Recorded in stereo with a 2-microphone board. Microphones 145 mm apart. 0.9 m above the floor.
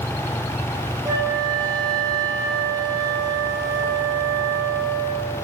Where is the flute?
25° right (ahead or behind), 1.6 m.